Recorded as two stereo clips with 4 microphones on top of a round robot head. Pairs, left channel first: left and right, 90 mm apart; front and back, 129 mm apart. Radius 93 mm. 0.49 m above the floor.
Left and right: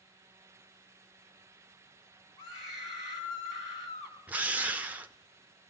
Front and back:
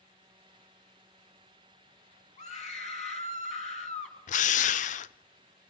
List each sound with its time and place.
2.4 s a scream: 30° left, 5 m
4.3 s a drill: 15° right, 0.6 m